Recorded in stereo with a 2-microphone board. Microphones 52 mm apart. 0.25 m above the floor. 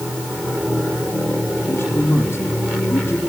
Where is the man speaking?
50° left (ahead or behind), 7 m.